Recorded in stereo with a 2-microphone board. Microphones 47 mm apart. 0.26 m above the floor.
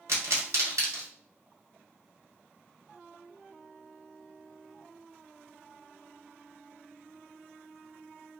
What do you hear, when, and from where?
0.1 s a pop: 75° right (ahead or behind), 1.1 m